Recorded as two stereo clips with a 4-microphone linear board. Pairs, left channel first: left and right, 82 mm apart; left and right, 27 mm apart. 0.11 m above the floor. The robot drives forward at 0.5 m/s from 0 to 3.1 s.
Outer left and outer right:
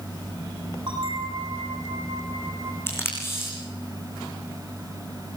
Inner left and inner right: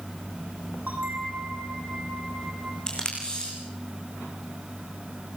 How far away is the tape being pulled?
About 8 m.